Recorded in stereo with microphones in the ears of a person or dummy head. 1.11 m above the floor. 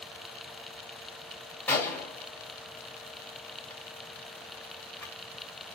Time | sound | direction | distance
1.7 | a gunshot | 10° left (ahead or behind) | 1.3 m